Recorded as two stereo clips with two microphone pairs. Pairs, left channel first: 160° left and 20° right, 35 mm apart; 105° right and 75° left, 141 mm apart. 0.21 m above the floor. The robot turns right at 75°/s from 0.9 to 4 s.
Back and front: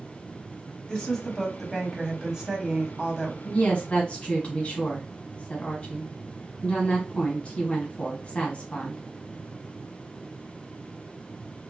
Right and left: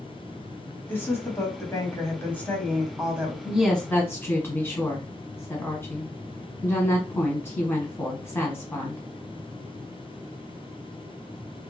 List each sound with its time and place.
0.9 s a woman speaking: 165° right, 1.1 m; by 3.4 s 20° left, 1.1 m
3.5 s a woman speaking: 145° left, 1.3 m; by 9.0 s 175° right, 1.3 m